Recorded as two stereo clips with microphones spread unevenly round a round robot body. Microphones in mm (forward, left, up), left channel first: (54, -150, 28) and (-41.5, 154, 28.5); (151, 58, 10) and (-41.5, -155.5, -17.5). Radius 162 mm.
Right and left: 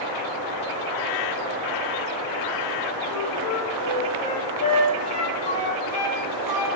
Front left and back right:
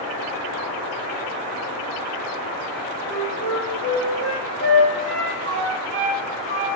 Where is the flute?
120° right, 5.5 m.